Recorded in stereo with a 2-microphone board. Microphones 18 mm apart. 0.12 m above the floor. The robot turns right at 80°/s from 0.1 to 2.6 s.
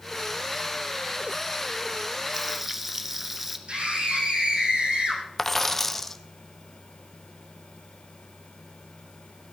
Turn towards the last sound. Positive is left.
turn(degrees=10)  # may be behind; listen again after turning